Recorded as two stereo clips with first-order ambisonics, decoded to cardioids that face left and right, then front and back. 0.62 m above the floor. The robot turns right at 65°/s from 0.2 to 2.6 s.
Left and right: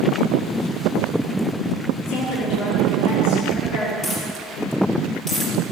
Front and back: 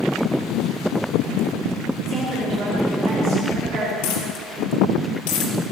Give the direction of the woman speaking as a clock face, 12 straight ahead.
9 o'clock.